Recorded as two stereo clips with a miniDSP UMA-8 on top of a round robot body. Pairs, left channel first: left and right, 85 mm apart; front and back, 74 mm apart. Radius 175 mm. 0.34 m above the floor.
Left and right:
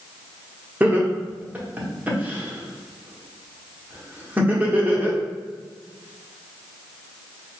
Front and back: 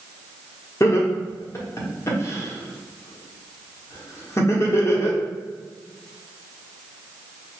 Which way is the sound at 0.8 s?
25° right.